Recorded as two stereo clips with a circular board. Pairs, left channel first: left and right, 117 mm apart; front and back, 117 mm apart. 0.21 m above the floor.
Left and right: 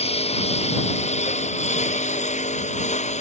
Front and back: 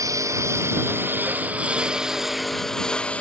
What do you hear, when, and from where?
0.0 s a lawn mower: 120° left; by 3.2 s 80° left